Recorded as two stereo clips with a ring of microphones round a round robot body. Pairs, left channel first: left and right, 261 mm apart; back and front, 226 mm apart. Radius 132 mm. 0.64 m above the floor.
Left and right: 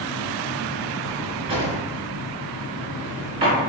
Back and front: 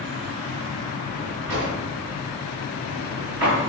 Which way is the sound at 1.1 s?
20° right.